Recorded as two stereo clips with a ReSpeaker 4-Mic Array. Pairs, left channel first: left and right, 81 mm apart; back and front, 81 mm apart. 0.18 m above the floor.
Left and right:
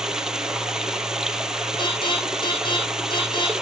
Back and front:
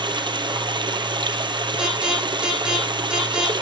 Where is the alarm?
80° left, 6 m.